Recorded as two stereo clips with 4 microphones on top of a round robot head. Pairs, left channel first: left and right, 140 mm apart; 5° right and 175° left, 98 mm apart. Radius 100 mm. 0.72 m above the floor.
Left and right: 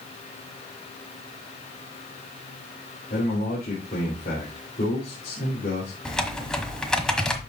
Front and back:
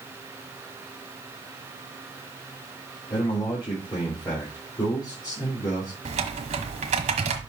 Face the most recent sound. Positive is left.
turn(degrees=175)